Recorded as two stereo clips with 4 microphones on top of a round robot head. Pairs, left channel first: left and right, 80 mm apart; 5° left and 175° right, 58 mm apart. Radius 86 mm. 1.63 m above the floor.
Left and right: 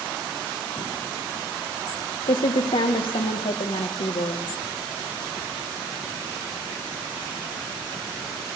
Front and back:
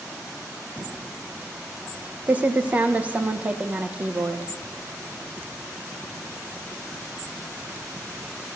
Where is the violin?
No violin in this recording.